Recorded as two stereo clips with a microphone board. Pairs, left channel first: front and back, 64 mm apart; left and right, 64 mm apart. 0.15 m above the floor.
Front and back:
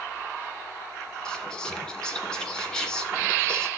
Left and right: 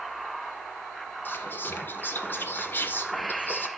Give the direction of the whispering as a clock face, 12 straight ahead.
10 o'clock.